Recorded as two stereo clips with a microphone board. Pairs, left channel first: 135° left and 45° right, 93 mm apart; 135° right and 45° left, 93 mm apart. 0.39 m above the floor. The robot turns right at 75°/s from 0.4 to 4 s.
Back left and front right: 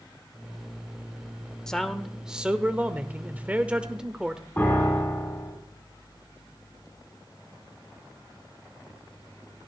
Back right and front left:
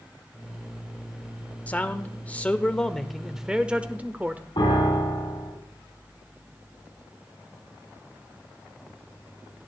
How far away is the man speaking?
About 0.8 m.